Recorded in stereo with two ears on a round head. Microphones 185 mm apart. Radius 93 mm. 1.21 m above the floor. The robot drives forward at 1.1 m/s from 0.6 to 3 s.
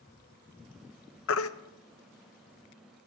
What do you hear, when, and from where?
1.3 s a baby crying: 65° left (ahead or behind), 0.6 m; by 1.5 s 75° left (ahead or behind), 0.6 m